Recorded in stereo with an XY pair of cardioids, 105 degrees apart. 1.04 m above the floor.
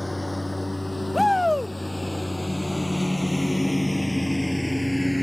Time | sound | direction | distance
0.0 | a lawn mower | 10° left | ?
1.1 | a shout | 10° left | ?